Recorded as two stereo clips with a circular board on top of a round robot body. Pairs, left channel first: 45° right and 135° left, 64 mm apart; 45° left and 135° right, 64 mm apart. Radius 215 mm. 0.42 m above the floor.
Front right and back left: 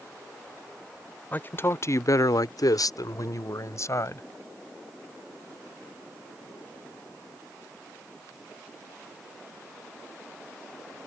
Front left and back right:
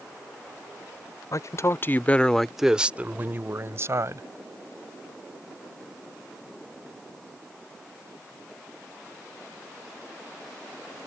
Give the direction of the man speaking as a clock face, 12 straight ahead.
11 o'clock.